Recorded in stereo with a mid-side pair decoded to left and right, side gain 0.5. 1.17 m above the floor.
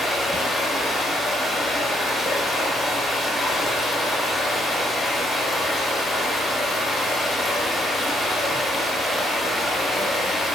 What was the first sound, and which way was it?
Running water, 25° left.